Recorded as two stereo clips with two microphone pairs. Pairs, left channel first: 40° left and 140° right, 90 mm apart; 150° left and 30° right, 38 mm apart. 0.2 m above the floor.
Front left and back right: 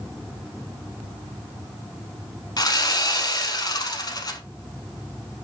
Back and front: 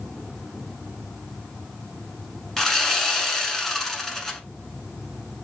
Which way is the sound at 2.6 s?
75° left.